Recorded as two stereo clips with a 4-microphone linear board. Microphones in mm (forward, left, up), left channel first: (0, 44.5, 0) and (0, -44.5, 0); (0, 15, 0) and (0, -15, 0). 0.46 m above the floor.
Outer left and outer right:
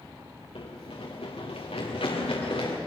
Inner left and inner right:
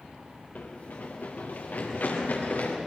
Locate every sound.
0.6 s running footsteps: 80° left, 3.5 m; by 2.8 s 85° left, 6 m